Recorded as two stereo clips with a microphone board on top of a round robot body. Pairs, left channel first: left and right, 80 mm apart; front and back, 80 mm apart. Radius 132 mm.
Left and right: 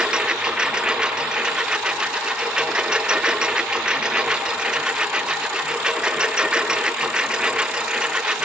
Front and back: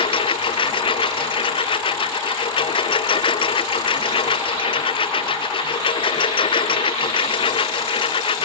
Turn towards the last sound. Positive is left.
turn(degrees=-10)